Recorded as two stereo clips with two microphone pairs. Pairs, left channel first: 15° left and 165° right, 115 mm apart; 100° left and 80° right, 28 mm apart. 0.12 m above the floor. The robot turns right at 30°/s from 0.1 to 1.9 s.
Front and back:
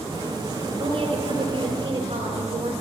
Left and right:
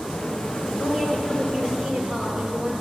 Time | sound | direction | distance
0.8 | a woman speaking | 145° right | 2 m